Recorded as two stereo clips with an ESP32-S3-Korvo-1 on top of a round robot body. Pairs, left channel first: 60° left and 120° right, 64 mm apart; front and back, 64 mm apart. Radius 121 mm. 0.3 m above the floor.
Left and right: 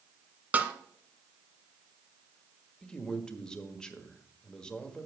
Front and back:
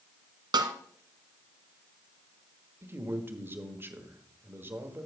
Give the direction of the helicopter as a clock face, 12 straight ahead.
No helicopter in this recording.